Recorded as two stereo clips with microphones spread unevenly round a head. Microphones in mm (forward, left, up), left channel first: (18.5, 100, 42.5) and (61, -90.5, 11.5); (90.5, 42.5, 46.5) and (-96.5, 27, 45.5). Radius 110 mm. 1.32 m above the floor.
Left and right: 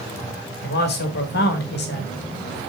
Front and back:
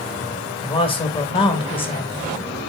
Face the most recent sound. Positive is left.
turn(degrees=65)